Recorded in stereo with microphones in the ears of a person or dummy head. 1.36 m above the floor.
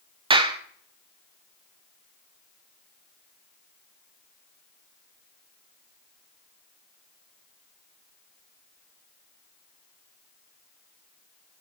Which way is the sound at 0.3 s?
25° right (ahead or behind).